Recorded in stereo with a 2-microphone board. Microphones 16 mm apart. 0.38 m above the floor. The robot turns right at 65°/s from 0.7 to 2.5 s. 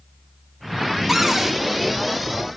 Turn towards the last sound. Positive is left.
turn(degrees=-80)